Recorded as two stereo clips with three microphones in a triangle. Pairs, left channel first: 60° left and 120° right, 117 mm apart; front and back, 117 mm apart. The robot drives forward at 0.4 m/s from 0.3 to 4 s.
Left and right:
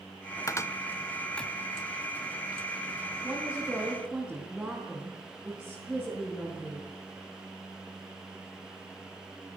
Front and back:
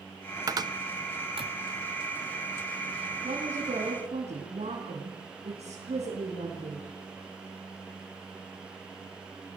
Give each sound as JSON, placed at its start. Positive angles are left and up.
{"t": 0.5, "sound": "a cupboard door", "azimuth_deg": 120, "distance_m": 0.7}
{"t": 3.2, "sound": "a woman speaking", "azimuth_deg": 155, "distance_m": 4.0}